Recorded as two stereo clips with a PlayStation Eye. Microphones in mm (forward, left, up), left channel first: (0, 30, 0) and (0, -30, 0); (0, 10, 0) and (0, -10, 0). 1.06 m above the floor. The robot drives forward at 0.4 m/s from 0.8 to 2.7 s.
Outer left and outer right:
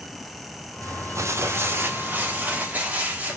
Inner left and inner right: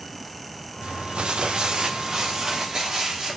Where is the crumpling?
65° right (ahead or behind), 0.5 m; by 3.4 s 30° right (ahead or behind), 1.0 m.